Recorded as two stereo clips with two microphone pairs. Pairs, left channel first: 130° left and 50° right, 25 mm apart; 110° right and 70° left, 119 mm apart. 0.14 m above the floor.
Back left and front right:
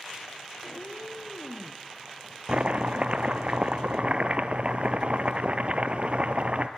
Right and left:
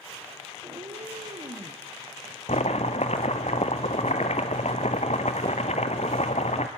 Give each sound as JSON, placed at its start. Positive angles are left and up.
{"t": 0.6, "sound": "a cat meowing", "azimuth_deg": 95, "distance_m": 2.0}
{"t": 2.5, "sound": "chopping", "azimuth_deg": -90, "distance_m": 1.1}